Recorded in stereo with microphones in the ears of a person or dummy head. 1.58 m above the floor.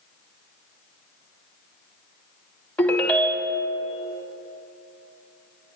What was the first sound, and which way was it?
A ringtone, 5° left (ahead or behind).